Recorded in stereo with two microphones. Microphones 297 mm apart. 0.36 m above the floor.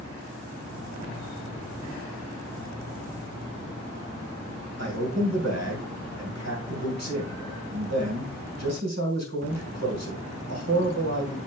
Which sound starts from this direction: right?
A man speaking, at 4.8 s.